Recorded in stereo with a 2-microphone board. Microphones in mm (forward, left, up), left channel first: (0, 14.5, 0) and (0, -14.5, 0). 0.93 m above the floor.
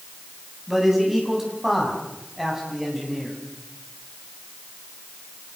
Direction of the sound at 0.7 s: 10° right (ahead or behind).